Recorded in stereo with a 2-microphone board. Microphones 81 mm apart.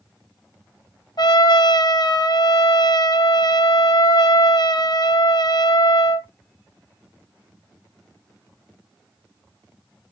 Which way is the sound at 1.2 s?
65° left (ahead or behind).